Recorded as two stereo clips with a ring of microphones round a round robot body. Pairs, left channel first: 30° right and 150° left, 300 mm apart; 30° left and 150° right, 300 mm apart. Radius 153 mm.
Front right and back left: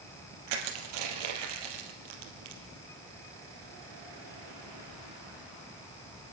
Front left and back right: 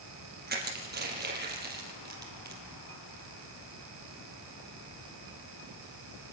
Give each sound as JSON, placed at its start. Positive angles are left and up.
{"t": 0.5, "sound": "crushing", "azimuth_deg": 150, "distance_m": 4.5}